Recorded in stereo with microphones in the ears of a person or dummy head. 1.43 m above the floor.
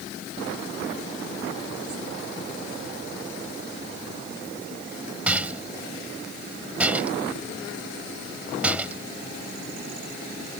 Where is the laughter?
I don't hear laughter.